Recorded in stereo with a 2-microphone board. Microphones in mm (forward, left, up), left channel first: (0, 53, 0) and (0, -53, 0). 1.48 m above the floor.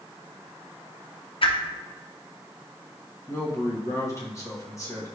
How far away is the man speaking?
About 1.3 m.